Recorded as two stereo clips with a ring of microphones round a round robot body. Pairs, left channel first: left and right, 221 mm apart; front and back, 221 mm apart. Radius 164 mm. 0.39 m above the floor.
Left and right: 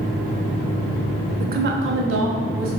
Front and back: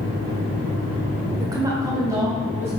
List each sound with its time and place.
1.4 s a woman speaking: 115° right, 0.9 m; by 2.7 s 100° right, 2.5 m